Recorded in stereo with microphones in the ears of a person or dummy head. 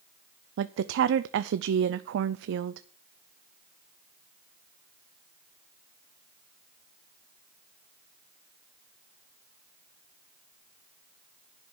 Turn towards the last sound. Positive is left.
turn(degrees=-65)  # may be behind; listen again after turning